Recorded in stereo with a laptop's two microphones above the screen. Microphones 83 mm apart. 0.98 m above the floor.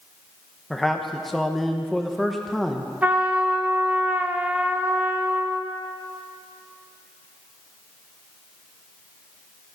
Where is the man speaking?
Centre (ahead or behind), 0.9 m.